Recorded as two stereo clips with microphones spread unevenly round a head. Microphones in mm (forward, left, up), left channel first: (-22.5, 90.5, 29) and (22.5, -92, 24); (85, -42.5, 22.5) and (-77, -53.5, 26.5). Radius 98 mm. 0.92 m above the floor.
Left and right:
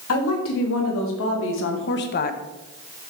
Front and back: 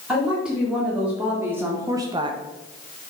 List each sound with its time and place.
0.1 s a woman speaking: 95° left, 2.5 m; by 2.4 s 135° left, 0.6 m